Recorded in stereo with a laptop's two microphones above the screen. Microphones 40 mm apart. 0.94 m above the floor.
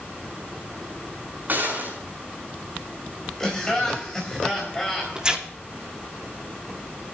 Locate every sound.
1.5 s a gunshot: 45° right (ahead or behind), 6.5 m
3.4 s laughter: 20° left (ahead or behind), 4.5 m
5.2 s tearing paper: 25° right (ahead or behind), 2.5 m